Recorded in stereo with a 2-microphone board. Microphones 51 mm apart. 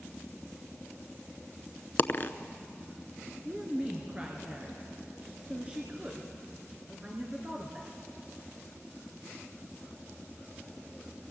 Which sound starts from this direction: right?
A woman speaking, at 3.5 s.